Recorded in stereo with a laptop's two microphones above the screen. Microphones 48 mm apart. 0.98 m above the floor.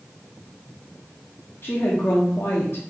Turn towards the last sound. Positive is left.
turn(degrees=50)  # may be behind; listen again after turning